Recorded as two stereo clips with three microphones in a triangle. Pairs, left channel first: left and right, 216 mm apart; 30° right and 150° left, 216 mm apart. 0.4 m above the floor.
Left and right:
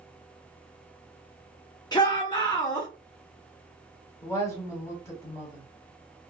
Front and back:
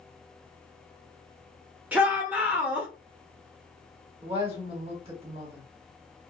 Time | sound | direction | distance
1.9 | a shout | 80° left | 0.9 m
4.2 | a woman speaking | 145° left | 1.3 m